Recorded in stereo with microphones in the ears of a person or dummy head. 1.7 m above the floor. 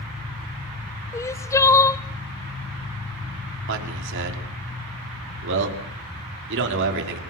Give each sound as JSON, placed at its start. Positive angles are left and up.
{"t": 1.1, "sound": "crying", "side_deg": 15, "distance_m": 1.0}
{"t": 3.7, "sound": "a man speaking", "side_deg": -65, "distance_m": 5.5}